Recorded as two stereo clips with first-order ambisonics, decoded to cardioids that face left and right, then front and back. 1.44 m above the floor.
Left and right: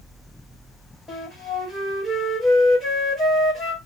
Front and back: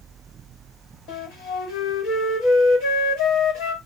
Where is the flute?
5° left, 1.3 m.